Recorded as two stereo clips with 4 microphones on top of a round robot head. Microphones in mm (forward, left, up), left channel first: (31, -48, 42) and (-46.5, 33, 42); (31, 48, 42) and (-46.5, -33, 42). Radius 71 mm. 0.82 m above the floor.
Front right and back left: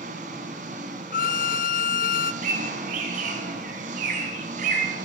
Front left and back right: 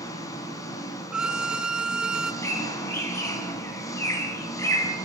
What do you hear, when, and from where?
0.0 s an engine running: 110° left, 1.9 m
1.1 s a violin: 50° right, 0.6 m
2.4 s a bird: 115° left, 3 m